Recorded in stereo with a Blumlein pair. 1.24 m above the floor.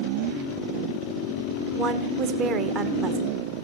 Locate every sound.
1.8 s a woman speaking: 30° right, 1.2 m